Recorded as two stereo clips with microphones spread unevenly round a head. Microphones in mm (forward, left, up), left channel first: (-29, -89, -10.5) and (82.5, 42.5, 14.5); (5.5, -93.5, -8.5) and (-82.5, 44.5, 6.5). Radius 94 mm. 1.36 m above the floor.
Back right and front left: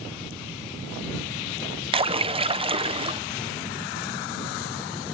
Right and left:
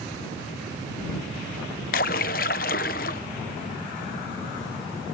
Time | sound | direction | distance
1.9 | a splash | 10° right | ?